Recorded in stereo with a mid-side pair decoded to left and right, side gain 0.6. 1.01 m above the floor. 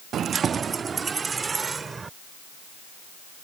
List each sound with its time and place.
0.1 s keys jangling: 45° right; by 2.1 s 25° right